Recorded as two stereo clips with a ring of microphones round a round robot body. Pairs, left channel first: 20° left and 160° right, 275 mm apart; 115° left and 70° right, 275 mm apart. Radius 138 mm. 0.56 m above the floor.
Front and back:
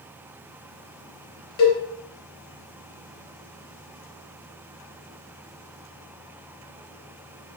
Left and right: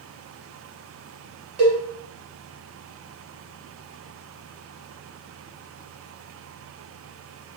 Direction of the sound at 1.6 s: Straight ahead.